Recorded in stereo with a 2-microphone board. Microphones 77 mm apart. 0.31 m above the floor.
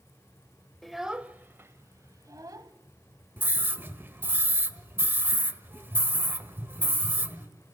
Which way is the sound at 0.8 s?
5° left (ahead or behind).